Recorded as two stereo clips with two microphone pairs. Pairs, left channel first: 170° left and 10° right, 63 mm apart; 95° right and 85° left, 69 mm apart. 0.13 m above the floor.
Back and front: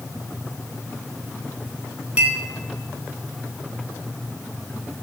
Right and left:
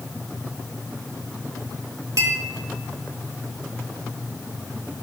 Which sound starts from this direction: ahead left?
A clink, at 2.2 s.